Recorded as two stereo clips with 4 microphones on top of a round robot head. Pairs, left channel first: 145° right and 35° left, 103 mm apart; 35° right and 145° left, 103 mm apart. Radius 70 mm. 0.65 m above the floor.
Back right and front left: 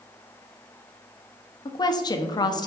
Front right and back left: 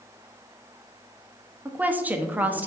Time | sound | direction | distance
1.6 | a woman speaking | 150° right | 0.6 m